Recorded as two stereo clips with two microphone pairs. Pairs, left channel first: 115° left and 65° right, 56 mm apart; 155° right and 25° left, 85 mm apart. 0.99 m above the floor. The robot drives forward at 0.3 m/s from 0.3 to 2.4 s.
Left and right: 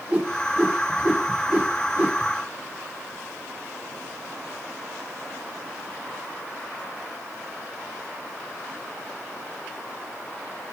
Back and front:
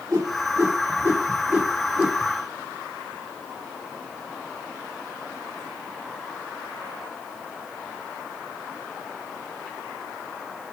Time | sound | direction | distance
0.1 | a whoosh | 15° right | 1.0 m